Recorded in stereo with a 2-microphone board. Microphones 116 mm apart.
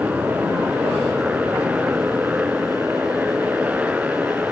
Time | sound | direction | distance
0.0 | a motorcycle | 10° right (ahead or behind) | ?